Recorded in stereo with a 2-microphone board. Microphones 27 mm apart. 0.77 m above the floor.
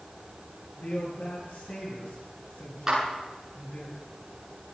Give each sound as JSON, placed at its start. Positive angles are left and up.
{"t": 0.8, "sound": "a man speaking", "side_deg": 85, "distance_m": 9.5}
{"t": 2.9, "sound": "a clap", "side_deg": -20, "distance_m": 9.0}